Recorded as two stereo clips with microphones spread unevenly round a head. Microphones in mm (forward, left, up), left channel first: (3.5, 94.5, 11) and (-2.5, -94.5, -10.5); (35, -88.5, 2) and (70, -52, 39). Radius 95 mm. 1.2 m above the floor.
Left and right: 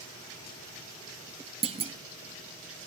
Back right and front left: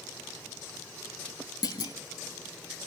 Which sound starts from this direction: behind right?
A clunk, at 1.6 s.